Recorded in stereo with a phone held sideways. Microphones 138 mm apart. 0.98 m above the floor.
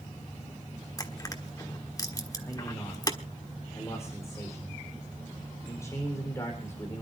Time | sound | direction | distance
1.0 | crushing | 25° left (ahead or behind) | 1.4 m
2.4 | a man speaking | 20° left (ahead or behind) | 4 m